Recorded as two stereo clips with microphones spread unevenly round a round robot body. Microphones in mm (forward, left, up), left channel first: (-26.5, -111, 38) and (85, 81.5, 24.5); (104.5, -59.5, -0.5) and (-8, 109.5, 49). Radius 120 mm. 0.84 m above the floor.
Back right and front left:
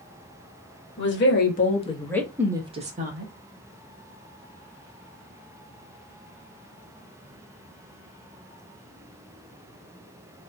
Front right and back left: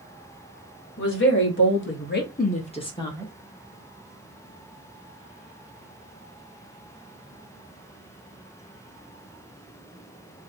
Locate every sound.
1.0 s a woman speaking: 85° right, 1.3 m; by 3.3 s 20° left, 1.2 m